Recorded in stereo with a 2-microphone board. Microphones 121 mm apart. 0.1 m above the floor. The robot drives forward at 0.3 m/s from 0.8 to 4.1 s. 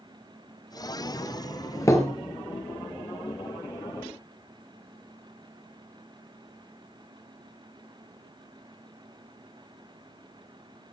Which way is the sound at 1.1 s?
25° left (ahead or behind).